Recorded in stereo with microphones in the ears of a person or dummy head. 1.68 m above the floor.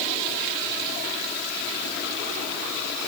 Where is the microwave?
I don't hear a microwave.